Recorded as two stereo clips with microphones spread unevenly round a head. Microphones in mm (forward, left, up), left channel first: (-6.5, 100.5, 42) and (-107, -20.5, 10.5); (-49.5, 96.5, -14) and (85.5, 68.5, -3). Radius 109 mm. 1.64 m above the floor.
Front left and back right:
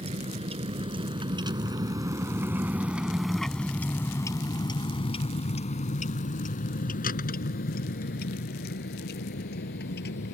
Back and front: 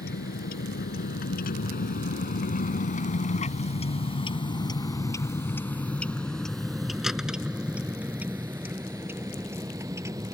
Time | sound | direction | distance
0.0 | a vehicle | straight behind | ?